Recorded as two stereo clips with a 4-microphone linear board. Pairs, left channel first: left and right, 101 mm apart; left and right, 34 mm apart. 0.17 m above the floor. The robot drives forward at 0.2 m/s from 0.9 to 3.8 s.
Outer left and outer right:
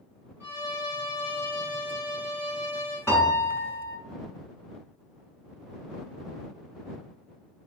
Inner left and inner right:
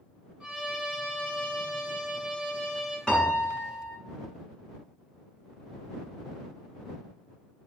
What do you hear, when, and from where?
0.4 s a violin: 25° right (ahead or behind), 1.9 m
3.1 s a piano: 25° left (ahead or behind), 1.2 m